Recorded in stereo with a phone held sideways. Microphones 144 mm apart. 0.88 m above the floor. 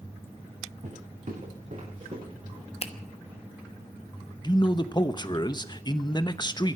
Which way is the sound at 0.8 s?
60° right (ahead or behind).